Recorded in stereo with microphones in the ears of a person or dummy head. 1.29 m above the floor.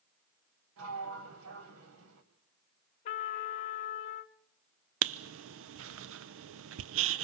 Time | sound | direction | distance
0.8 | a sliding door | 75° right (ahead or behind) | 3 m
3.0 | a trumpet | 35° left (ahead or behind) | 0.8 m
5.0 | writing | 70° right (ahead or behind) | 0.7 m